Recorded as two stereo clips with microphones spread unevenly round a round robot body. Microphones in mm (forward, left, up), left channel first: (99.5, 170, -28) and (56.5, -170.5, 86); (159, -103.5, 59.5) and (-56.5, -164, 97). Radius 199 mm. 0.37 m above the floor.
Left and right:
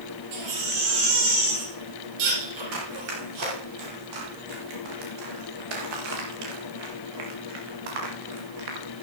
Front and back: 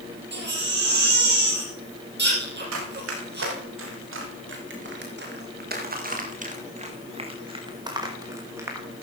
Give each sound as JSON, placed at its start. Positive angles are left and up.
{"t": 0.3, "sound": "a baby crying", "azimuth_deg": -125, "distance_m": 5.5}
{"t": 2.7, "sound": "running footsteps", "azimuth_deg": -150, "distance_m": 6.0}